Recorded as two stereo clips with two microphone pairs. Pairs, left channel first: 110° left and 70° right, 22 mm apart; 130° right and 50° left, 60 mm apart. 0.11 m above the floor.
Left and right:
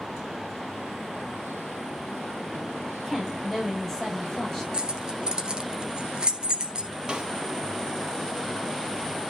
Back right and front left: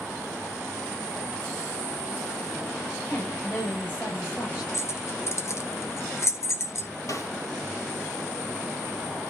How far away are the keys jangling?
About 1.5 m.